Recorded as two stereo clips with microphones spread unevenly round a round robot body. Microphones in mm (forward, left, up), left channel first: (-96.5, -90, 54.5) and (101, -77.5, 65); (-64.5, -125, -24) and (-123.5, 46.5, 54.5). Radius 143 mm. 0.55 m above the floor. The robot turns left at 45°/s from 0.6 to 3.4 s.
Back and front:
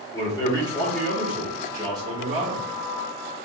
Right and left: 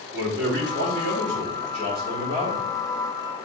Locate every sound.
0.1 s a man speaking: 125° left, 1.5 m; by 2.7 s 30° left, 1.5 m